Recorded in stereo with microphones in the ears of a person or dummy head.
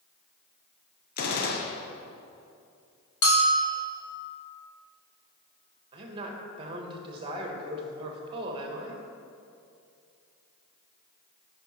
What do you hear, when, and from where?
1.2 s a gunshot: 45° left (ahead or behind), 0.9 m
3.2 s a bell: 30° left (ahead or behind), 1.4 m
5.9 s a woman speaking: 30° right (ahead or behind), 1.5 m